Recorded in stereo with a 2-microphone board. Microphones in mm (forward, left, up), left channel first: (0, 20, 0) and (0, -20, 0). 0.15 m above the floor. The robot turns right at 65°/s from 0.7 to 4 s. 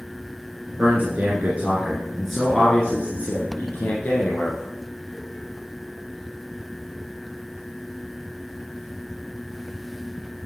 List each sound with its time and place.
0.8 s a man speaking: 50° right (ahead or behind), 2 m; by 4.7 s 50° left (ahead or behind), 2 m